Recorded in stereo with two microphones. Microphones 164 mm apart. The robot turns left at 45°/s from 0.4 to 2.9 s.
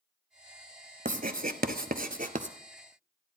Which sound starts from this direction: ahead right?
Writing, at 1.1 s.